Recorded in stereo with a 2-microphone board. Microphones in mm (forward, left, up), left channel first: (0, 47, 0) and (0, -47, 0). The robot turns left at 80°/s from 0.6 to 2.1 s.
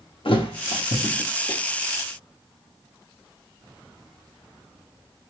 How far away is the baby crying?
No baby crying in this recording.